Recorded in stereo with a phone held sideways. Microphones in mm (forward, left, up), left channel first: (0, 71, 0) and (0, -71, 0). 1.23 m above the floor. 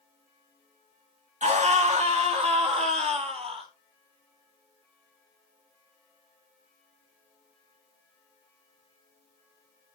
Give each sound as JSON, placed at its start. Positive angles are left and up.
{"t": 1.4, "sound": "a scream", "side_deg": -55, "distance_m": 2.5}